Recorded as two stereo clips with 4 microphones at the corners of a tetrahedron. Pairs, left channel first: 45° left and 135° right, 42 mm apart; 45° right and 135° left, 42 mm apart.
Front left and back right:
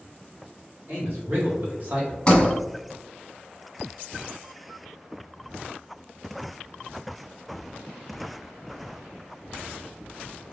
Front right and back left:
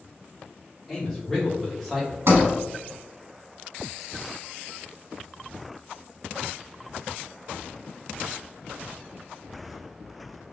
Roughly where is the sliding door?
Behind left.